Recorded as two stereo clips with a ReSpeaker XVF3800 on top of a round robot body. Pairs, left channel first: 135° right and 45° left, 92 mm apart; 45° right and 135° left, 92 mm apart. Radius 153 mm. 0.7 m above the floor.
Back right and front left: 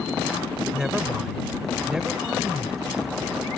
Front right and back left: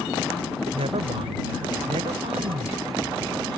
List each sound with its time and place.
0.7 s a woman speaking: 125° left